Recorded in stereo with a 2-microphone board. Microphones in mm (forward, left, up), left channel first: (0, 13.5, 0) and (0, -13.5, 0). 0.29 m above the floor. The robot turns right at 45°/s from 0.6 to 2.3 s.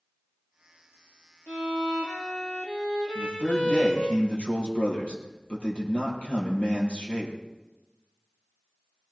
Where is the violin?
95° left, 3.5 m; by 4.2 s 135° left, 3.5 m.